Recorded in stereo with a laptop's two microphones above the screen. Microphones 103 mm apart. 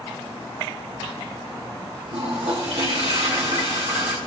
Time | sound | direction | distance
2.1 | a toilet flushing | 80° right | 6 m